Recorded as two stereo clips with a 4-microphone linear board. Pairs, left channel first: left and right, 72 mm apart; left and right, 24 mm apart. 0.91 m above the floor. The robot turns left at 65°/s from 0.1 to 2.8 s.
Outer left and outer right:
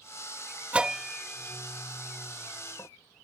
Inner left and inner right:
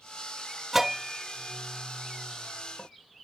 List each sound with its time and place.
0.7 s a bell: 20° right (ahead or behind); by 2.9 s 55° left (ahead or behind)